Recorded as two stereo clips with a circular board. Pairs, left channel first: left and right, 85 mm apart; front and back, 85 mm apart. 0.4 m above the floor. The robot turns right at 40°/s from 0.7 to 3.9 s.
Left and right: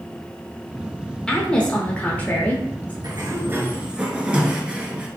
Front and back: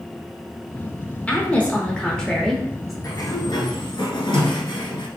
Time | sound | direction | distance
1.3 | a woman speaking | 25° left | 0.8 m
3.0 | a sliding door | 45° right | 0.9 m